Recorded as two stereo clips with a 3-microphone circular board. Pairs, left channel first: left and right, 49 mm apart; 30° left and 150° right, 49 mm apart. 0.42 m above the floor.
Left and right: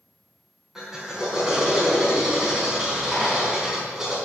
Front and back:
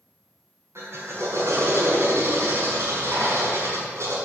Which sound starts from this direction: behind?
A drill, at 0.8 s.